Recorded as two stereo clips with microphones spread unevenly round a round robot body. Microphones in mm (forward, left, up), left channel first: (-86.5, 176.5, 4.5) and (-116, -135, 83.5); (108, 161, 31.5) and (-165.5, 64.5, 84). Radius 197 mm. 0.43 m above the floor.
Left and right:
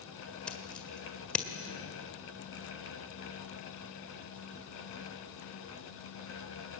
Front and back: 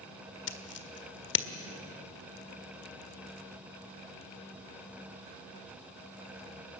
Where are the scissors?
10° left, 1.6 m.